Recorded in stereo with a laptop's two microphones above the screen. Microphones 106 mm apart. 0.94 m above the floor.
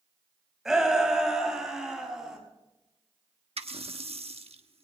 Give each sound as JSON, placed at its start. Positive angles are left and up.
{"t": 0.7, "sound": "a shout", "side_deg": -5, "distance_m": 5.0}
{"t": 3.6, "sound": "a running tap", "side_deg": -65, "distance_m": 1.2}